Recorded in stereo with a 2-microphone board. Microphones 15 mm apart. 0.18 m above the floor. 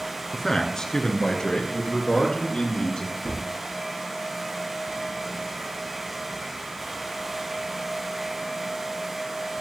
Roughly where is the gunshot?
Left.